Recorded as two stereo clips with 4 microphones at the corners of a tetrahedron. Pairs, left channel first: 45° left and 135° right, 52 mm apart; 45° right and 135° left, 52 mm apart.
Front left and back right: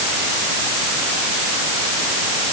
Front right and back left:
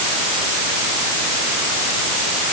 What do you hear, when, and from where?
Only background noise.